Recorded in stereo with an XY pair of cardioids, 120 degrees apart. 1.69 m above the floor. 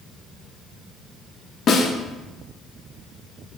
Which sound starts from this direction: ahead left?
A snare drum, at 1.7 s.